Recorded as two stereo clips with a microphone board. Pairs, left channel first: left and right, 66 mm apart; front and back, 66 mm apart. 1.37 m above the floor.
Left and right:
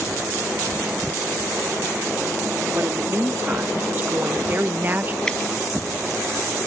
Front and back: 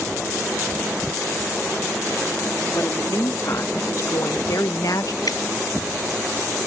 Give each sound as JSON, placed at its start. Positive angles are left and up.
{"t": 2.8, "sound": "a woman speaking", "azimuth_deg": -35}
{"t": 5.3, "sound": "dripping", "azimuth_deg": 10}